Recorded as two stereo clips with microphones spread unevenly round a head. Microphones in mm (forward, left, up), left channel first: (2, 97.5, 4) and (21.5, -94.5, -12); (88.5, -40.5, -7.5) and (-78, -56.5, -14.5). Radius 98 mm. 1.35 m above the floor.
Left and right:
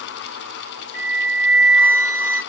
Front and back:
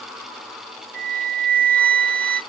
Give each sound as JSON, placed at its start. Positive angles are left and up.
{"t": 0.9, "sound": "a flute", "azimuth_deg": 165, "distance_m": 2.5}